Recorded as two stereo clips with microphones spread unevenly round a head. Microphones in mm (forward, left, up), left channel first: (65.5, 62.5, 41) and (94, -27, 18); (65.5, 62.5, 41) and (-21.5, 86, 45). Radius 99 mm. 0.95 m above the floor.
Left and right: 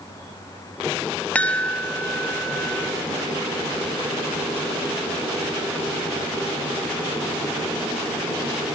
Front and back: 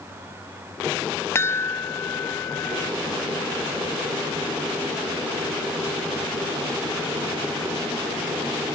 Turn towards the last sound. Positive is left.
turn(degrees=20)